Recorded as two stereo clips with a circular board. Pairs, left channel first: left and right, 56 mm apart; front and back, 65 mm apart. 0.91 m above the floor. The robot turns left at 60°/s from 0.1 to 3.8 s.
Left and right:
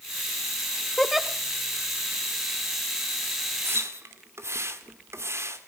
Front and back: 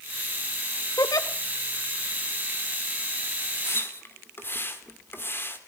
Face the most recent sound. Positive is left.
turn(degrees=-55)